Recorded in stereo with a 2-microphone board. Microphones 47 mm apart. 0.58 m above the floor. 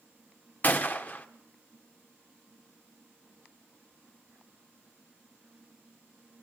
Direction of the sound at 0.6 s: 35° left (ahead or behind).